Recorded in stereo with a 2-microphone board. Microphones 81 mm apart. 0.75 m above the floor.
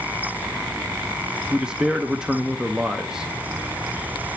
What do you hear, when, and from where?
1.5 s a man speaking: 10° right (ahead or behind), 0.7 m